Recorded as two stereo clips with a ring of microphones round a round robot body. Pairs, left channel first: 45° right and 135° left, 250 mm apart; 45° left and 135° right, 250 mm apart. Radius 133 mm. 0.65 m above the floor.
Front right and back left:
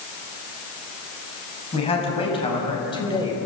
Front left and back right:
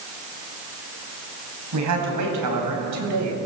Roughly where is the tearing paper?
No tearing paper in this recording.